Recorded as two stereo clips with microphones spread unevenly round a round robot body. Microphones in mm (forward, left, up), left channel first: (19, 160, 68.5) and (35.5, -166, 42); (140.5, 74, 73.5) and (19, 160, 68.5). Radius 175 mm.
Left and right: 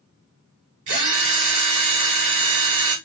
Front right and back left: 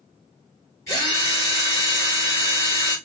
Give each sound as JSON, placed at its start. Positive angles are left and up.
{"t": 0.9, "sound": "a drill", "azimuth_deg": -105, "distance_m": 1.5}